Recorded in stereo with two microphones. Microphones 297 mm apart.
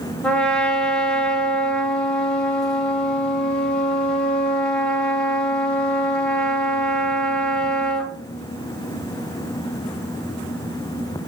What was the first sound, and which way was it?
A trumpet, 5° left (ahead or behind).